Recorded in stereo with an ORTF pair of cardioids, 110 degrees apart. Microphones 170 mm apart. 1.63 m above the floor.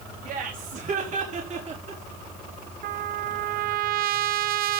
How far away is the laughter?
About 4 m.